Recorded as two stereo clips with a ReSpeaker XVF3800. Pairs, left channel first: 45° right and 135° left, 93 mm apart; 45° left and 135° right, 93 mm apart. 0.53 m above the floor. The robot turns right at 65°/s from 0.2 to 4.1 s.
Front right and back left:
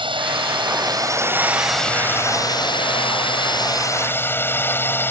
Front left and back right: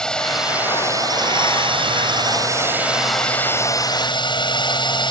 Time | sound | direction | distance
0.0 | a drone | 125° left | ?